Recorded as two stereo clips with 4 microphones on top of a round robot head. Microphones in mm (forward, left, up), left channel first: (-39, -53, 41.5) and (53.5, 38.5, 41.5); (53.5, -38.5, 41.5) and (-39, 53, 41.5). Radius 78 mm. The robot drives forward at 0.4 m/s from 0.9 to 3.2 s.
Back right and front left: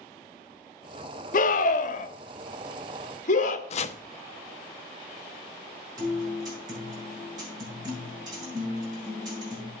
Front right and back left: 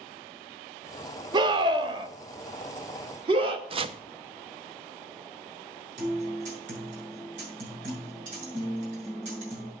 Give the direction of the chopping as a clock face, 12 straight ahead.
6 o'clock.